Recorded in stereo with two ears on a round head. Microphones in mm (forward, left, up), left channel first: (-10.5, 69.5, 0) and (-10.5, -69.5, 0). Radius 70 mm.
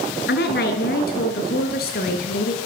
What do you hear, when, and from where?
0.3 s a woman speaking: 75° left (ahead or behind), 7 m; by 2.6 s 65° left (ahead or behind), 8 m